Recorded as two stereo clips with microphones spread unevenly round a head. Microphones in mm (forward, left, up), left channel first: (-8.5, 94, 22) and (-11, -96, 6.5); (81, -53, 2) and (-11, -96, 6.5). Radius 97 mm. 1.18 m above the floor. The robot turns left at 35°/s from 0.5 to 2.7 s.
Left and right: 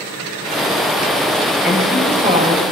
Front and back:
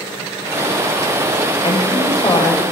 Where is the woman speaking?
5° right, 6 m; by 2.6 s 40° right, 6 m.